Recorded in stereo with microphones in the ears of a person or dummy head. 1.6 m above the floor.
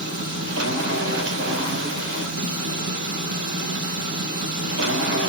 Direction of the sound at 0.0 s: 60° right (ahead or behind).